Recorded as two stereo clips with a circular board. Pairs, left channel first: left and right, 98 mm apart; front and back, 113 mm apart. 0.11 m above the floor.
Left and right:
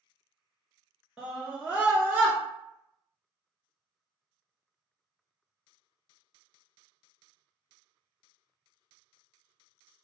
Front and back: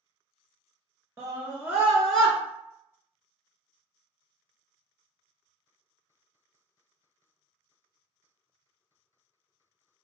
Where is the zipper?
I don't hear a zipper.